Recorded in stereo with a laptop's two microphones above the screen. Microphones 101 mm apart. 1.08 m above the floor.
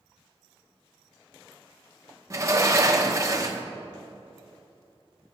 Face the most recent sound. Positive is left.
turn(degrees=-30)  # may be behind; listen again after turning